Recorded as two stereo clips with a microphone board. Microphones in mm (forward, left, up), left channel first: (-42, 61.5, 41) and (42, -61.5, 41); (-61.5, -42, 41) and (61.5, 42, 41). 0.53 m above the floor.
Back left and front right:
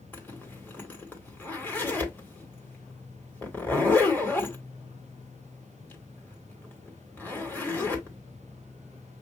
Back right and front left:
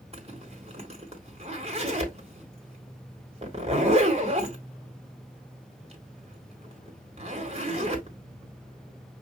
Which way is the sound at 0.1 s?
50° left.